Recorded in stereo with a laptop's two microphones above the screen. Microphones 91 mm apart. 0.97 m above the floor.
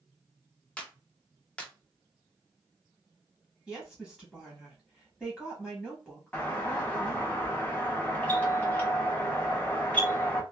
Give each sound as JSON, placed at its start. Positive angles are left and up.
{"t": 0.8, "sound": "a clap", "side_deg": 10, "distance_m": 0.6}
{"t": 3.7, "sound": "a woman speaking", "side_deg": 0, "distance_m": 0.9}
{"t": 6.3, "sound": "a doorbell", "side_deg": 15, "distance_m": 0.8}